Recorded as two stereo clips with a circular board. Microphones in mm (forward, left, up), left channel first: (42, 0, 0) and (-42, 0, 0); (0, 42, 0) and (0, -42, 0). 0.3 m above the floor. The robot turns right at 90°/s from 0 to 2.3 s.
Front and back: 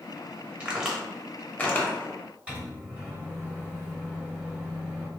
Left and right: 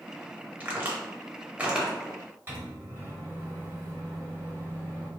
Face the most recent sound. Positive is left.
turn(degrees=-120)